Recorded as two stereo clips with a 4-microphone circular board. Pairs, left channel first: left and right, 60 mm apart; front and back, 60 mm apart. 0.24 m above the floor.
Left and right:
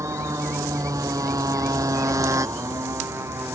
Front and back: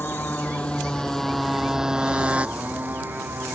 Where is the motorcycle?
60° right; by 3.6 s 130° right.